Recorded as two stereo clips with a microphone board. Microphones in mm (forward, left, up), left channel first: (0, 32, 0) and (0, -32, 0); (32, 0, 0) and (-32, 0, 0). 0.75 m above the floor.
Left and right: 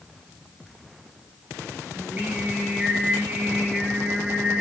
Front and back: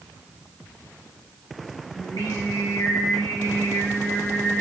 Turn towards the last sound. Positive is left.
turn(degrees=-25)